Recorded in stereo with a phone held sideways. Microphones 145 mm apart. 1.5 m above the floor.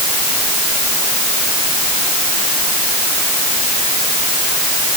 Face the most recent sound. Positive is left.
No sound to turn to.